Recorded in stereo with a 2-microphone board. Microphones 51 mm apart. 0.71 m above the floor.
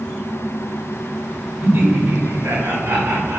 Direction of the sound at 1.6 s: 60° right (ahead or behind).